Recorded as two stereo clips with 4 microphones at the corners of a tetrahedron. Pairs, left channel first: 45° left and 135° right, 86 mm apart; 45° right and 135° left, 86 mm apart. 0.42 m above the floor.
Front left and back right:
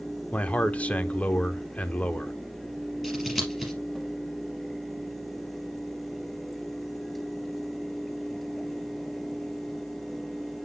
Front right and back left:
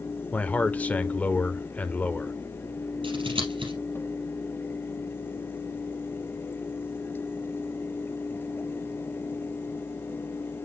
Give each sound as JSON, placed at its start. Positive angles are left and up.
{"t": 0.3, "sound": "a man speaking", "azimuth_deg": -5, "distance_m": 0.8}
{"t": 3.0, "sound": "scissors", "azimuth_deg": 135, "distance_m": 4.0}